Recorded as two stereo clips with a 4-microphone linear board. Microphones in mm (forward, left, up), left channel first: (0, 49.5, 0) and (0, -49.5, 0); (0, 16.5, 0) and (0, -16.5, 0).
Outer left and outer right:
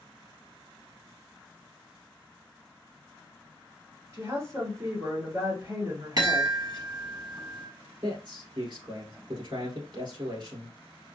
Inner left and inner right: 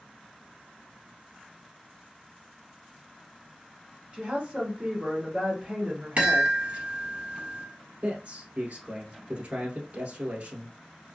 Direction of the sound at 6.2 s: 45° right (ahead or behind).